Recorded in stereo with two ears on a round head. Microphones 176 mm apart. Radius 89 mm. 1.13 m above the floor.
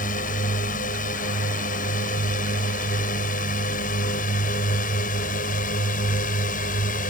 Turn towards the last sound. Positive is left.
turn(degrees=40)  # may be behind; listen again after turning